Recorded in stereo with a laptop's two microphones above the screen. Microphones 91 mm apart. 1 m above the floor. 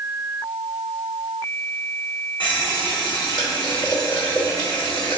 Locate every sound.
2.4 s a running tap: 60° left (ahead or behind), 1.5 m